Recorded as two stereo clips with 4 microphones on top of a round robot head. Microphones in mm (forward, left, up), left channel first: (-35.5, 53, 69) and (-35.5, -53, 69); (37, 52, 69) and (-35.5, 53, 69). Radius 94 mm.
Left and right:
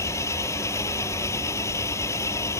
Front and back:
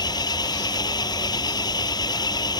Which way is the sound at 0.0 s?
20° left.